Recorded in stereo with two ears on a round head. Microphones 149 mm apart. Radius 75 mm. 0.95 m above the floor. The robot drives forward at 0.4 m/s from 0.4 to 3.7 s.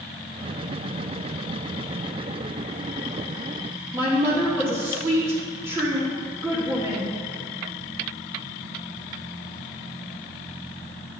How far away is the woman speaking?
About 2.5 m.